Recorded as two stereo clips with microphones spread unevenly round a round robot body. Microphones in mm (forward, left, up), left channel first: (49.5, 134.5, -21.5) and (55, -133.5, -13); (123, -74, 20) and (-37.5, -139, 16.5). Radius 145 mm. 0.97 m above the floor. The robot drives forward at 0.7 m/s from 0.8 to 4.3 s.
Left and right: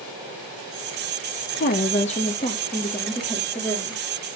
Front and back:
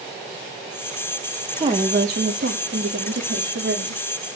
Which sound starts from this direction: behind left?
A woman speaking, at 1.5 s.